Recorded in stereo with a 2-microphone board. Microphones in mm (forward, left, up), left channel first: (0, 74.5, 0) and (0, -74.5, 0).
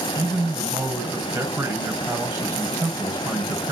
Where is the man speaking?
15° right (ahead or behind), 2.5 m.